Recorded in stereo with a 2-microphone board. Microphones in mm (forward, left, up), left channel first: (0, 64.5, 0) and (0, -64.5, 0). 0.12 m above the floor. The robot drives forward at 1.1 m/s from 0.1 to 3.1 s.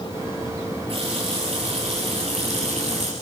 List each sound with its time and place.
0.9 s a running tap: 50° right (ahead or behind), 8.5 m; by 3.1 s 65° right (ahead or behind), 7.5 m